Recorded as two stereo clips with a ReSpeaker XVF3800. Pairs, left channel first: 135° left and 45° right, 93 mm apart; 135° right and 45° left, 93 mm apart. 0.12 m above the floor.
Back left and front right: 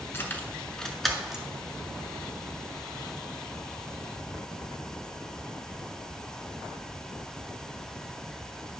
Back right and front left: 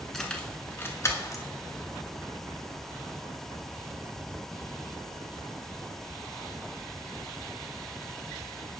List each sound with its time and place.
0.1 s keys jangling: 145° left, 1.0 m; by 1.4 s 125° right, 1.1 m